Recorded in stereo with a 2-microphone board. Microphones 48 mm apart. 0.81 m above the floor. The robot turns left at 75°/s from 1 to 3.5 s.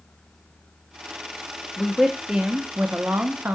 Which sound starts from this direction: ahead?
A woman speaking, at 1.8 s.